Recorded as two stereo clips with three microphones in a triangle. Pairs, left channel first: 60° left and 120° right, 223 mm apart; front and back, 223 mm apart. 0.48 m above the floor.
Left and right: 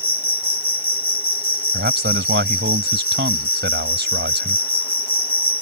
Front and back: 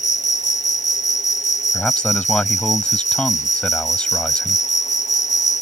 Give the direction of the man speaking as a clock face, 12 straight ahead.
3 o'clock.